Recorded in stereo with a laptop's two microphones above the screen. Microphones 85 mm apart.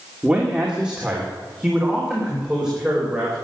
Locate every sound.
0.2 s a man speaking: 10° right (ahead or behind), 2.5 m